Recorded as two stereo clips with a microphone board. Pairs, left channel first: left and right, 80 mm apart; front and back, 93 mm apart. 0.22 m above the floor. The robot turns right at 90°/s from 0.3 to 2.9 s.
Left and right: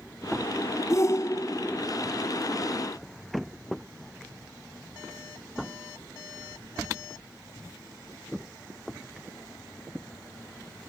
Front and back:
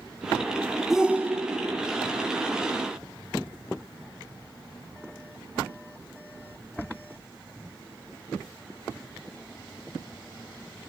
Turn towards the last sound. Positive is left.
turn(degrees=-85)